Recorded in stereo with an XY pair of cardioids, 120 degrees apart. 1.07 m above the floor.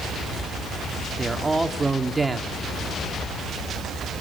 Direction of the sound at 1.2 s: 10° right.